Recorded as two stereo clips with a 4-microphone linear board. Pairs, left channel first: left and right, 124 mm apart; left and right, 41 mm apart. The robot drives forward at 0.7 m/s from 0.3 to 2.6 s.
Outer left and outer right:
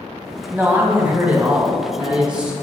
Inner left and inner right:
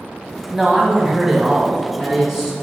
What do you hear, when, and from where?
0.5 s a man speaking: 15° right (ahead or behind), 1.1 m; by 2.5 s 10° right (ahead or behind), 2 m